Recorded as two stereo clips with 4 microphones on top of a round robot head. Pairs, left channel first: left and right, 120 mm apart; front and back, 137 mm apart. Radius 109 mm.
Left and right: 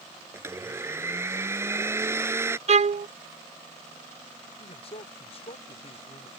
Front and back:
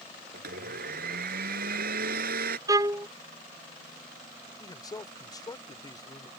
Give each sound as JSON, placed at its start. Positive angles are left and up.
{"t": 0.3, "sound": "a blender", "azimuth_deg": -160}
{"t": 2.7, "sound": "a violin", "azimuth_deg": -115}
{"t": 4.6, "sound": "a man speaking", "azimuth_deg": 55}